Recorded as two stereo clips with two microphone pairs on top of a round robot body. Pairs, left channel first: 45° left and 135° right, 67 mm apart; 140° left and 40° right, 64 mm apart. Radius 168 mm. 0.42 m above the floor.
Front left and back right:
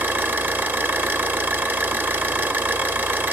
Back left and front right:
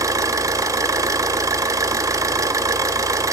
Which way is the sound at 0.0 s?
75° right.